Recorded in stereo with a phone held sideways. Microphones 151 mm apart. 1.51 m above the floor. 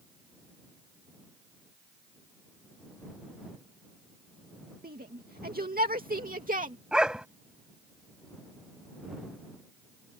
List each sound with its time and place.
4.8 s a shout: 85° right; by 6.8 s 60° right (ahead or behind)
6.9 s a dog barking: 5° right (ahead or behind)